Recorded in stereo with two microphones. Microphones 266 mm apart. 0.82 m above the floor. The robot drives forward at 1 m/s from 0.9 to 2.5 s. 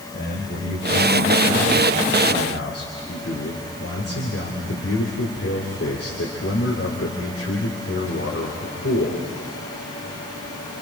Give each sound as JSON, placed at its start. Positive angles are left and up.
{"t": 0.1, "sound": "a man speaking", "side_deg": 40, "distance_m": 3.5}